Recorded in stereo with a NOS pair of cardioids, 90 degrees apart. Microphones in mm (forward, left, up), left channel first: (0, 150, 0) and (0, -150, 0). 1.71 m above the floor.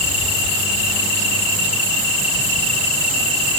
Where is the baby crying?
No baby crying in this recording.